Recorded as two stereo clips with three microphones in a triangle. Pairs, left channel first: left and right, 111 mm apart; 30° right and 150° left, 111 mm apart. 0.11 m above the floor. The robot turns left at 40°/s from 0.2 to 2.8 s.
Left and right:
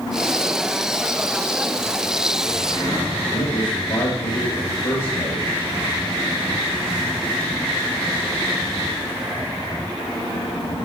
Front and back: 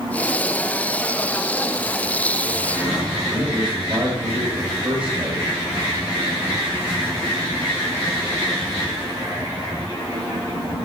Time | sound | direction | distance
3.3 | a man speaking | 75° left | 3 m